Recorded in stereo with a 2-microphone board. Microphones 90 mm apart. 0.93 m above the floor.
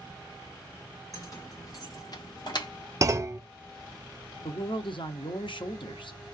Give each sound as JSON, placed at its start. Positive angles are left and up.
{"t": 1.1, "sound": "keys jangling", "side_deg": 40, "distance_m": 2.0}
{"t": 3.0, "sound": "a clunk", "side_deg": -35, "distance_m": 0.6}
{"t": 4.4, "sound": "a man speaking", "side_deg": 65, "distance_m": 1.0}